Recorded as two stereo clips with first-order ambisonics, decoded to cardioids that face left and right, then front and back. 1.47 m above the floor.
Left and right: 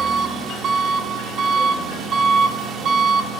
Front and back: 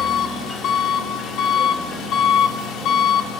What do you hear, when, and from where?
0.0 s an engine running: 35° right, 1.7 m